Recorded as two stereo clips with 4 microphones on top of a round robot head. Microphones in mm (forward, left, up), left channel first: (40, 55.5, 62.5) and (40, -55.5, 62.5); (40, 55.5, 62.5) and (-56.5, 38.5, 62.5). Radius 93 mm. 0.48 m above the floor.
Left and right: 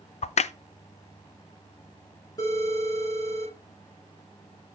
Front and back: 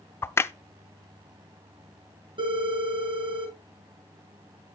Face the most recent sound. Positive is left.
turn(degrees=155)